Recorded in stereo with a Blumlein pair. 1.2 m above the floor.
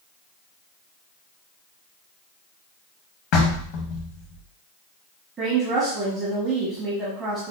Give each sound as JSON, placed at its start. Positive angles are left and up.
{"t": 3.3, "sound": "knocking", "azimuth_deg": 40, "distance_m": 0.9}
{"t": 5.4, "sound": "a woman speaking", "azimuth_deg": -25, "distance_m": 1.2}